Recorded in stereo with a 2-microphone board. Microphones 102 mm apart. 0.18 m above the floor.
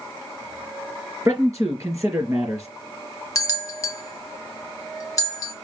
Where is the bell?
30° left (ahead or behind), 0.7 m.